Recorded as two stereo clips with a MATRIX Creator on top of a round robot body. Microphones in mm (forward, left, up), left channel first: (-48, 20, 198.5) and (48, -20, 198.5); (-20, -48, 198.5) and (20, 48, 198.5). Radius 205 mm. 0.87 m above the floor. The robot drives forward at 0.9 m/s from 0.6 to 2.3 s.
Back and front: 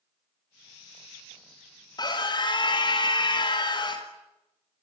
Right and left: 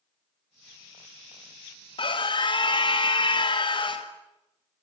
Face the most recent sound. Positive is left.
turn(degrees=-155)